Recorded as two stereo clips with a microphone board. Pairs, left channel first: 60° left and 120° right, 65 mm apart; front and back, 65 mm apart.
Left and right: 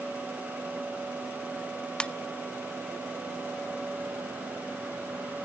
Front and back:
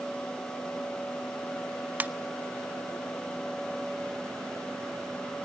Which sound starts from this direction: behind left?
A ringtone, at 2.0 s.